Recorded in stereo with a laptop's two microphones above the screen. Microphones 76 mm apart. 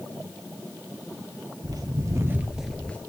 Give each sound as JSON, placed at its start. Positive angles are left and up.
{"t": 1.6, "sound": "footsteps", "side_deg": -60, "distance_m": 1.8}